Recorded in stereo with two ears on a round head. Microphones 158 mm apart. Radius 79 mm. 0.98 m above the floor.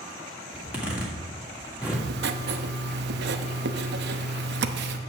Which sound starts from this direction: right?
Writing, at 1.9 s.